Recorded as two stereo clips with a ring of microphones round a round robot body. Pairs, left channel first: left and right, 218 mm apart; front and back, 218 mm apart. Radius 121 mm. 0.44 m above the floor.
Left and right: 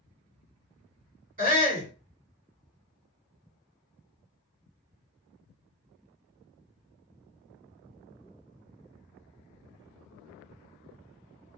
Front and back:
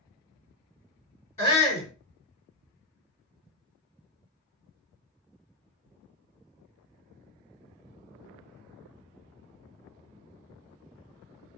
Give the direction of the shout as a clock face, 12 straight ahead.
2 o'clock.